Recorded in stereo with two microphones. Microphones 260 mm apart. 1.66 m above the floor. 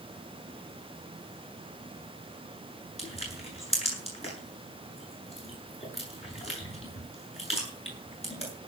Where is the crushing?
25° left (ahead or behind), 8 m.